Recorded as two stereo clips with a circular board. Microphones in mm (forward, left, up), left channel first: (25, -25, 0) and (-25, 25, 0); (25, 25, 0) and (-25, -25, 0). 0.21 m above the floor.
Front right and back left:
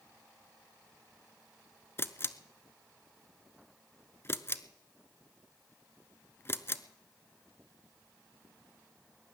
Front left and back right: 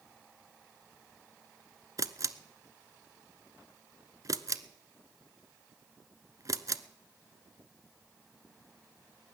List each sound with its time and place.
2.0 s a camera shutter: 100° right, 0.6 m